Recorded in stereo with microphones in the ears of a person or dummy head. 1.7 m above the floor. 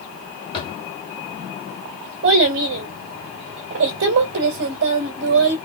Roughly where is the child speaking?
Right.